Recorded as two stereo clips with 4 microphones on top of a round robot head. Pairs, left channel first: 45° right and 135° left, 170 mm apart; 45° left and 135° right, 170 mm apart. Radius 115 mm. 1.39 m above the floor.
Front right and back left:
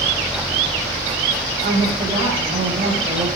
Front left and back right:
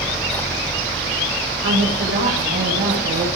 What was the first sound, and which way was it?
A woman speaking, 165° right.